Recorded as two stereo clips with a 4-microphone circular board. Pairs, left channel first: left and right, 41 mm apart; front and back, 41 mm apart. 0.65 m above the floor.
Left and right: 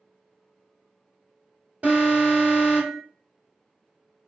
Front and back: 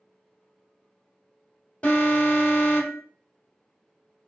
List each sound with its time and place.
1.8 s an alarm: 50° right, 2 m